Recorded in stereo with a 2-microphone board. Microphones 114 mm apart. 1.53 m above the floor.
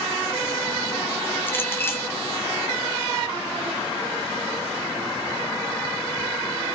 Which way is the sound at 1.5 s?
20° left (ahead or behind).